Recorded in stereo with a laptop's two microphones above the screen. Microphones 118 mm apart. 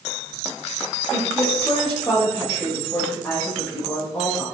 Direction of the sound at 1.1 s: 10° left (ahead or behind).